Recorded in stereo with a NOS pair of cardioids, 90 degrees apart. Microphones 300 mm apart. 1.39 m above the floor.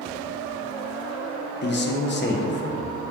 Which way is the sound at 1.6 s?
35° left.